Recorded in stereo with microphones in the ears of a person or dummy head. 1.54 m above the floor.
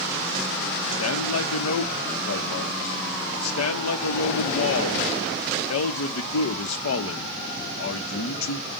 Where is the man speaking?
85° left, 0.8 m.